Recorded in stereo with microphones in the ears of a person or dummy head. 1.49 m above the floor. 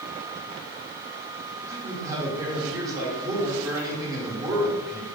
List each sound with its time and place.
1.7 s a man speaking: 15° right (ahead or behind), 1.7 m